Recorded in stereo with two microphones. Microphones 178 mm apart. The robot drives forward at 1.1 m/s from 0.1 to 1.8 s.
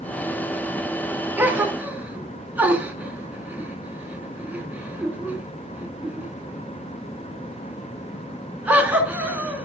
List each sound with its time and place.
1.4 s a gasp: 10° right (ahead or behind), 2 m